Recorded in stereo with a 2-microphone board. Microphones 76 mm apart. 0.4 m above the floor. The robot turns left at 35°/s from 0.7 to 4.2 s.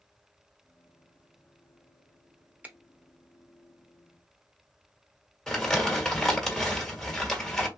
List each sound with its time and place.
2.6 s a finger snap: 20° right (ahead or behind), 0.7 m
5.5 s crumpling: 10° left (ahead or behind), 1.3 m